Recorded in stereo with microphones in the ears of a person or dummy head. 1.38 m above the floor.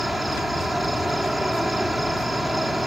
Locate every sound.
0.0 s an insect: 5° left (ahead or behind)